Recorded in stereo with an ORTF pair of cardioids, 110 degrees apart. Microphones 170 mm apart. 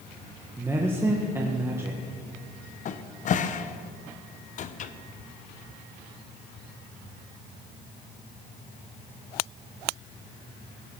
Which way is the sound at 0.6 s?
15° right.